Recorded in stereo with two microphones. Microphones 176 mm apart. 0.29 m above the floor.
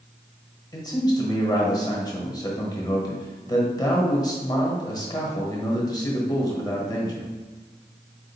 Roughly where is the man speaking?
Left.